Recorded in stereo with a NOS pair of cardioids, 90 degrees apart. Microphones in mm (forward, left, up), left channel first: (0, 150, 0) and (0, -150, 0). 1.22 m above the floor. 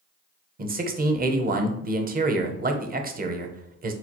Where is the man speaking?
30° right, 0.7 m.